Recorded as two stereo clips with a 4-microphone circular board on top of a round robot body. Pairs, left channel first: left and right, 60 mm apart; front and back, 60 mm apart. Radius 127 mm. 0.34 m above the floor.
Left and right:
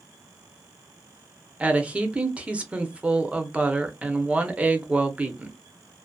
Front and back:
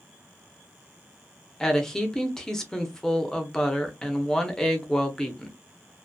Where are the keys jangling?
No keys jangling in this recording.